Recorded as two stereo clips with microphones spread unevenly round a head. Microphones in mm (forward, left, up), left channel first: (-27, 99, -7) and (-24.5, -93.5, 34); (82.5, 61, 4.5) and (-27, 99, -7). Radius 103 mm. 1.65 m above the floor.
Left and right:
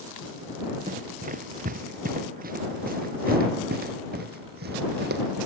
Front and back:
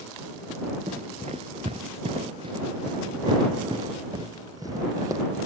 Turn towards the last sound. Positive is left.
turn(degrees=-125)